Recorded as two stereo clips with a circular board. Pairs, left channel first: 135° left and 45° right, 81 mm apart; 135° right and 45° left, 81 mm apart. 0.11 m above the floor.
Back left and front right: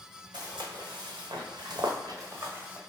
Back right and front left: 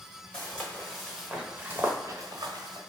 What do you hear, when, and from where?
0.3 s footsteps: 65° right, 1.6 m; by 2.8 s 25° left, 1.0 m